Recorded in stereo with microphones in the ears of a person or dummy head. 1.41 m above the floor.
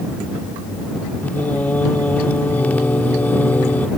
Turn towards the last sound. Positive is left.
turn(degrees=10)  # may be behind; listen again after turning